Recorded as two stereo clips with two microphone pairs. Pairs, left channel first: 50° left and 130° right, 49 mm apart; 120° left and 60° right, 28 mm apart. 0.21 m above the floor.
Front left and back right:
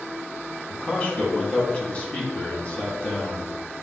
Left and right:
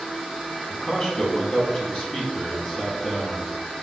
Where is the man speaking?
85° left, 1.2 m.